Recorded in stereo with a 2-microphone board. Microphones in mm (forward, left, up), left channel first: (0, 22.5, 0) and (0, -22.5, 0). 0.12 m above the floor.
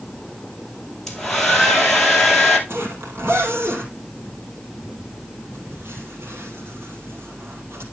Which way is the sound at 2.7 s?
65° right (ahead or behind).